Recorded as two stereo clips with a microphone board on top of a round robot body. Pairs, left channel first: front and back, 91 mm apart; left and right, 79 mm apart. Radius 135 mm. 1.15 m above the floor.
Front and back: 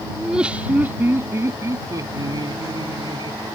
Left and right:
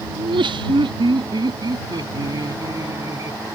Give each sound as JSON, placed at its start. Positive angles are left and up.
{"t": 0.2, "sound": "laughter", "azimuth_deg": -95}